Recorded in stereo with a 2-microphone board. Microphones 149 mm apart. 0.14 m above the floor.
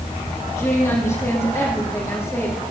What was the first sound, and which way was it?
A woman speaking, 20° left (ahead or behind).